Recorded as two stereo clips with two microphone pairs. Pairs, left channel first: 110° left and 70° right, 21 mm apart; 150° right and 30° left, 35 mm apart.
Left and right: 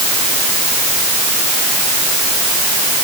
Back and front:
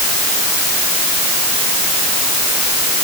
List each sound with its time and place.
Only background noise.